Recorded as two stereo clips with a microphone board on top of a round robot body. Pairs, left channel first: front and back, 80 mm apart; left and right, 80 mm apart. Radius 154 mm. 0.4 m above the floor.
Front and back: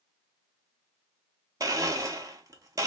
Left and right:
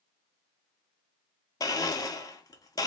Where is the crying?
No crying in this recording.